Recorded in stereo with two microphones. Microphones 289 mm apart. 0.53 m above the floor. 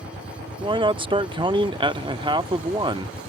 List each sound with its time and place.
0.6 s a man speaking: 20° right (ahead or behind)